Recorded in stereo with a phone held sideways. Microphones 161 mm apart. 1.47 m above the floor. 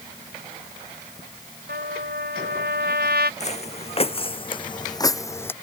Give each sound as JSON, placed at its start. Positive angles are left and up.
{"t": 1.7, "sound": "a trumpet", "side_deg": -85}
{"t": 3.4, "sound": "footsteps", "side_deg": 45}